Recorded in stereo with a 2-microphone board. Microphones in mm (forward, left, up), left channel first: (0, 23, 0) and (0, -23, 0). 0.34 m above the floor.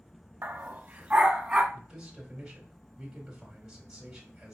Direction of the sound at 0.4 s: 45° right (ahead or behind).